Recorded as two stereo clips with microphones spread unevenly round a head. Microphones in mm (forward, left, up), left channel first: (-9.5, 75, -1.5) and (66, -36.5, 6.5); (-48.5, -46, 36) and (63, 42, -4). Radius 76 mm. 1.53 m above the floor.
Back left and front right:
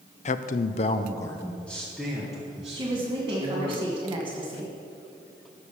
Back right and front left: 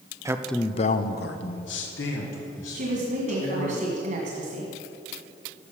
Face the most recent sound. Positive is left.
turn(degrees=5)